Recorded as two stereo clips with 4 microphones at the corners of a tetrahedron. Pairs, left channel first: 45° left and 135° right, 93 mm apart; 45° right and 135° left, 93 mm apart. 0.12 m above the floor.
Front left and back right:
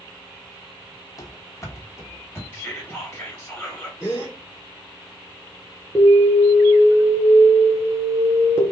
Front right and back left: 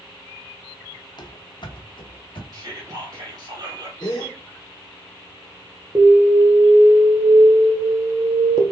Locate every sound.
1.2 s running footsteps: 5° right, 1.0 m; by 2.4 s 20° right, 1.8 m
2.5 s whispering: 115° left, 2 m
4.0 s a gasp: 10° right, 3.5 m
6.0 s an alarm: 100° left, 1.7 m